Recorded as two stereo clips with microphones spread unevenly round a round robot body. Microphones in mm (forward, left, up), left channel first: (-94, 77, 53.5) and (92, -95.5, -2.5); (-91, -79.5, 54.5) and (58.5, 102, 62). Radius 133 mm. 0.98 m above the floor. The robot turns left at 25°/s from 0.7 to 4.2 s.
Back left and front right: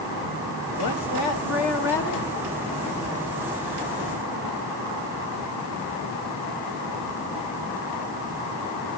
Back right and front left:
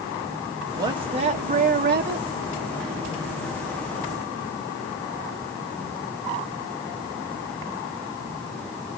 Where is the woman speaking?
125° left, 1.5 m; by 2.3 s 85° left, 1.5 m.